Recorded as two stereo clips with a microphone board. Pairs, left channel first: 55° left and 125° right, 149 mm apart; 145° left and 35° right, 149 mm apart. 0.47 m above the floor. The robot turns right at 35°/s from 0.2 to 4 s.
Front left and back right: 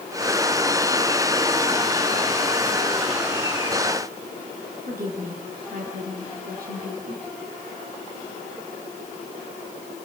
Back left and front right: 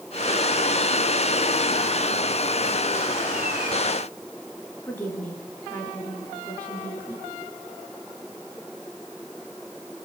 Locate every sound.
4.9 s a woman speaking: 135° right, 7 m